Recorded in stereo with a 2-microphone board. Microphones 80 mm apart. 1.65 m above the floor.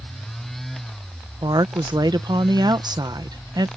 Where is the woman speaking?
55° right (ahead or behind).